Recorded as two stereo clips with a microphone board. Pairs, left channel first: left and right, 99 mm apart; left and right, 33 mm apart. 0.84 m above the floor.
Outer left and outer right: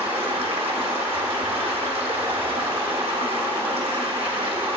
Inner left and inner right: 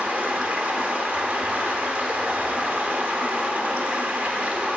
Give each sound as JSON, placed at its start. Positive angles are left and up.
{"t": 0.0, "sound": "running water", "side_deg": -75, "distance_m": 0.9}